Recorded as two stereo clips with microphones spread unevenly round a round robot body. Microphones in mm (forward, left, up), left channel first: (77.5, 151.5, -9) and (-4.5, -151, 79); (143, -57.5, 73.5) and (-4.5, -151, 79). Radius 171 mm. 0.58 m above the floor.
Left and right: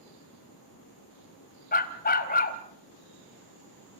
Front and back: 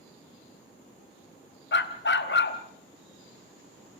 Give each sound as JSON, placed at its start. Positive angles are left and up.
{"t": 1.7, "sound": "a dog barking", "azimuth_deg": 10, "distance_m": 1.5}